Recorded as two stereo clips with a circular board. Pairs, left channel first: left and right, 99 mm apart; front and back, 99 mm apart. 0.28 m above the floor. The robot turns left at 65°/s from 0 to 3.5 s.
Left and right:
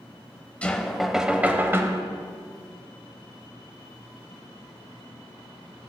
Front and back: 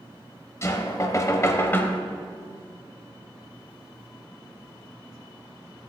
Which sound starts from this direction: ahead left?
Knocking, at 0.6 s.